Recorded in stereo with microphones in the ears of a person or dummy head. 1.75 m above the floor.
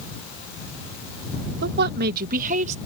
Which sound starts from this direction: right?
A woman speaking, at 1.6 s.